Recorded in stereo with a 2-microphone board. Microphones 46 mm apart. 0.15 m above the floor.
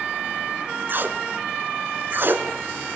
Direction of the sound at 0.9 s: 50° right (ahead or behind).